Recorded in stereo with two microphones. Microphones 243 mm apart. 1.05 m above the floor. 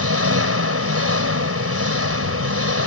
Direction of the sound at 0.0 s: 70° right (ahead or behind).